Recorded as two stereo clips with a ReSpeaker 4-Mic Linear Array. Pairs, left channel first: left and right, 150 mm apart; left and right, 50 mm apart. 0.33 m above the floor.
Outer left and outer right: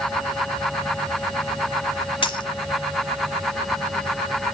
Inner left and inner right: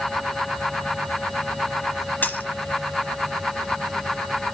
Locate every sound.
2.2 s a dropped coin: 35° left (ahead or behind), 1.1 m